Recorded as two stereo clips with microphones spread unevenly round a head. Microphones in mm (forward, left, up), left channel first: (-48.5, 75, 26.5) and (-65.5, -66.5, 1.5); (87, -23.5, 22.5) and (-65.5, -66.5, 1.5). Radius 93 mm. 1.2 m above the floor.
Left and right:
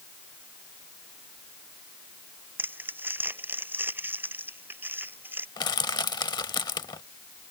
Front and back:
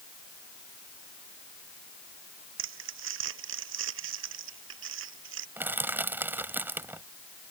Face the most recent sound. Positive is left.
turn(degrees=110)